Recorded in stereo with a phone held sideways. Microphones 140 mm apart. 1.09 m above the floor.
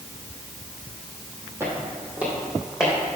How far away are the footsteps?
About 2 m.